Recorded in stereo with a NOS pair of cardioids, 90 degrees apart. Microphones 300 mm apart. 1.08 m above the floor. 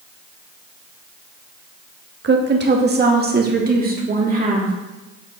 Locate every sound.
2.2 s a woman speaking: 40° right, 1.4 m; by 4.7 s 30° right, 2.5 m